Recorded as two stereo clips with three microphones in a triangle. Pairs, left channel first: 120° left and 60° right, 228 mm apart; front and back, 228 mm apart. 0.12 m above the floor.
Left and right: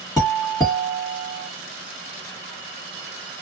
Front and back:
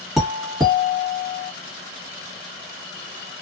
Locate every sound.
0.2 s a doorbell: 90° left, 1.5 m